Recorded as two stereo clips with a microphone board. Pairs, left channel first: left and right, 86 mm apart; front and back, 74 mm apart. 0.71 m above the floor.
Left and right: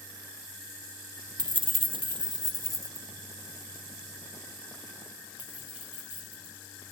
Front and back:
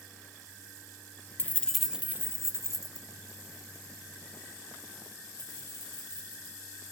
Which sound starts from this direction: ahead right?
Keys jangling, at 1.4 s.